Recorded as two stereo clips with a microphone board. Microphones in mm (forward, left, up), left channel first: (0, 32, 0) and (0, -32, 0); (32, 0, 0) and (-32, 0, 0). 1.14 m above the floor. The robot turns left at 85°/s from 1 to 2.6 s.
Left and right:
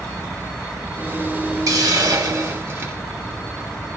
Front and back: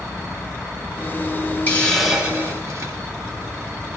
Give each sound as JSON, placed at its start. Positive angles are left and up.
{"t": 1.7, "sound": "a hiss", "azimuth_deg": -60, "distance_m": 1.4}